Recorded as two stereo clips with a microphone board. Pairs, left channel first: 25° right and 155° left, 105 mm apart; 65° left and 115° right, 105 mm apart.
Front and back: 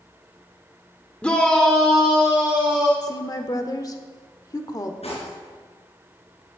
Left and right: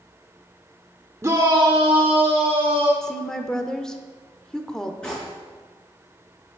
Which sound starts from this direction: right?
A shout, at 1.2 s.